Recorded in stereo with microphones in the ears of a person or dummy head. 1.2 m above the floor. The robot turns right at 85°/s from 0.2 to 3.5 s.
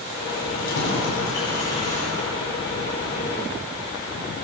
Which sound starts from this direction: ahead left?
Keys jangling, at 0.5 s.